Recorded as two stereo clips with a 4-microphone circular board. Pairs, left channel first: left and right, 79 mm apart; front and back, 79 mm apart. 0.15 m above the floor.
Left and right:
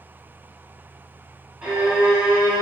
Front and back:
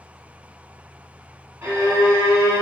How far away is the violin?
About 1.6 m.